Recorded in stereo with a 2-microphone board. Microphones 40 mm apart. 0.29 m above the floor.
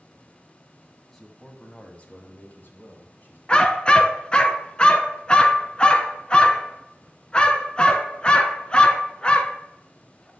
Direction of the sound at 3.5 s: 25° left (ahead or behind).